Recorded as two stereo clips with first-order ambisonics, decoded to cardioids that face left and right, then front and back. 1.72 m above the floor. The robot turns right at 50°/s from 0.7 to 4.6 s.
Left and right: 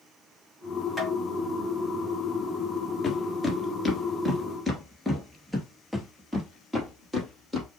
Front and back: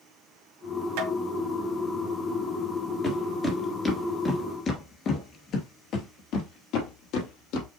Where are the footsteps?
65° left, 1.7 m; by 7.7 s 10° right, 3.5 m.